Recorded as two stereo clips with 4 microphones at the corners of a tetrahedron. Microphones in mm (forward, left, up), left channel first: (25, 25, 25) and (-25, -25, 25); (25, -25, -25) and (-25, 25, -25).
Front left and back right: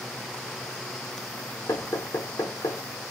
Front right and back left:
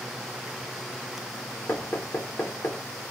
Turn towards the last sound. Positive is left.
turn(degrees=10)